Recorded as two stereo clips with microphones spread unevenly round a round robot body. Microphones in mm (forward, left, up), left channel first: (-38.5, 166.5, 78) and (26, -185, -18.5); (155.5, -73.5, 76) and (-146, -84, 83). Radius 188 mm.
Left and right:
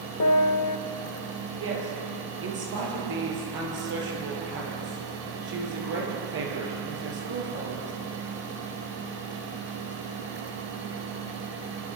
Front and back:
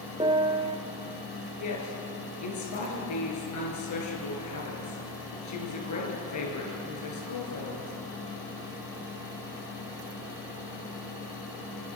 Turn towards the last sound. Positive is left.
turn(degrees=-25)